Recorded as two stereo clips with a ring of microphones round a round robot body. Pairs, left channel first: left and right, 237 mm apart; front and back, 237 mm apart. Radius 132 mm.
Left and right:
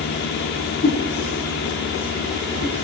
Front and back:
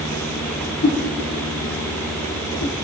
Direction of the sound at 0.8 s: 45° left.